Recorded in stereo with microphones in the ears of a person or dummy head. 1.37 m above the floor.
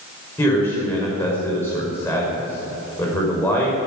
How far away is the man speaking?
About 5 m.